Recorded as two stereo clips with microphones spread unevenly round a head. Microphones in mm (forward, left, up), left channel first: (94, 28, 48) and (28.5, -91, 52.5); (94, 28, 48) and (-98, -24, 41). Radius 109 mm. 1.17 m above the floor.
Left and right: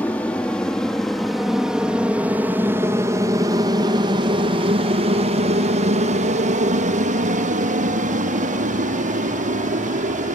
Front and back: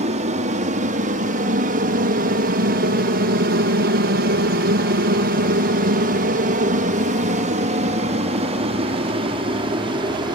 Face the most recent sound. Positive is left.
turn(degrees=-100)